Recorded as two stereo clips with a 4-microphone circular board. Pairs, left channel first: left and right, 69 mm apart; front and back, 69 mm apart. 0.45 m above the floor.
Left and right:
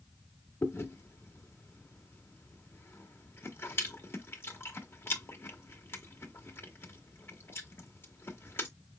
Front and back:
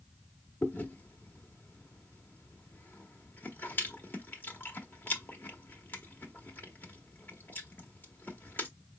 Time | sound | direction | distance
0.6 | chewing | 50° left | 1.3 m